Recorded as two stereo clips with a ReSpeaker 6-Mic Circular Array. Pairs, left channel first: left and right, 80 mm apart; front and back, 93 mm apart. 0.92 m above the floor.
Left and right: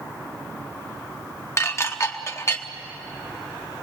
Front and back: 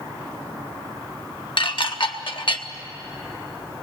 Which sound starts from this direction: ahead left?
Dishes clattering, at 1.6 s.